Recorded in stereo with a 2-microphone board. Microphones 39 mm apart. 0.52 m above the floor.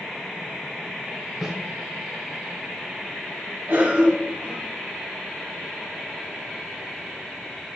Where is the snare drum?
15° right (ahead or behind), 2.5 m.